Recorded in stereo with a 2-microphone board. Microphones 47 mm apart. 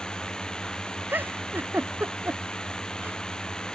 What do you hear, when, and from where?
0.0 s a drone: 15° left (ahead or behind)
1.1 s a giggle: 40° right (ahead or behind)